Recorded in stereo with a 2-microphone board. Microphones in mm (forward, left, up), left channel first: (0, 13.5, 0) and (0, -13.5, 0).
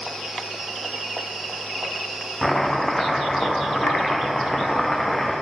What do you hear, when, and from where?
2.4 s chopping: 15° left (ahead or behind), 3.5 m